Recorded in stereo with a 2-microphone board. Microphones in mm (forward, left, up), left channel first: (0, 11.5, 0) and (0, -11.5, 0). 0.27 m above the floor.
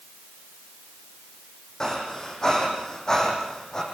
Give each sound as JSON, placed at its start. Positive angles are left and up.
{"t": 1.8, "sound": "breathing", "side_deg": 30, "distance_m": 6.5}